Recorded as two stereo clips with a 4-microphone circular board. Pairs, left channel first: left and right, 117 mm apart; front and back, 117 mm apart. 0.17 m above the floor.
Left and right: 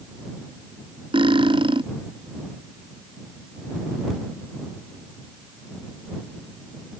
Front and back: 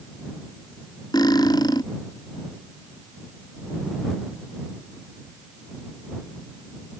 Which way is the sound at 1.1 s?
50° right.